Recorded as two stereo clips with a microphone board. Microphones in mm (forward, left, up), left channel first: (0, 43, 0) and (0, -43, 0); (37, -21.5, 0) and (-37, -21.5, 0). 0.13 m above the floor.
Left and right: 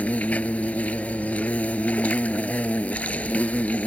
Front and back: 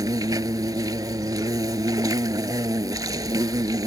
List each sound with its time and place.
0.0 s an insect: 160° left